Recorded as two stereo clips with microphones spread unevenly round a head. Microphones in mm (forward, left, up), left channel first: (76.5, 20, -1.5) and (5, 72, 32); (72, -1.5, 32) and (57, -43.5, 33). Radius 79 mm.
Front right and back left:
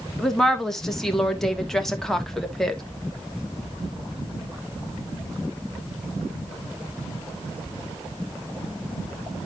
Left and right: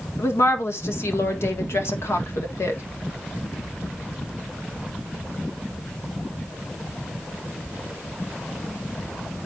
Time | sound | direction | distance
0.2 | a woman speaking | 50° left | 1.5 m